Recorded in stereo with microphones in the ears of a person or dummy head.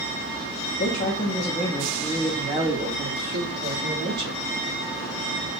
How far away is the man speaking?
About 0.9 m.